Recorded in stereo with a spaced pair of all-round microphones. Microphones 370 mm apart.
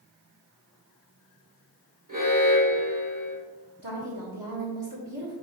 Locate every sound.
2.1 s an alarm: 55° right (ahead or behind), 2.5 m
3.8 s a woman speaking: 65° right (ahead or behind), 1.8 m